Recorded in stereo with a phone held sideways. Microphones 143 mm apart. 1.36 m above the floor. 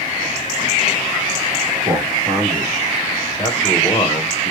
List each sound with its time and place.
1.9 s a man speaking: 10° right (ahead or behind), 1.7 m; by 4.5 s 40° left (ahead or behind), 1.3 m